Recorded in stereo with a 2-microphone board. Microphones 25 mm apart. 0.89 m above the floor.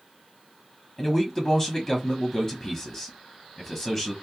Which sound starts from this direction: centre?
A man speaking, at 1.0 s.